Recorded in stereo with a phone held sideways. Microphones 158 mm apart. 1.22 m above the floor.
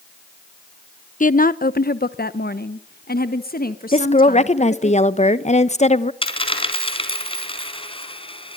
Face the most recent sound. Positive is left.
turn(degrees=35)  # may be behind; listen again after turning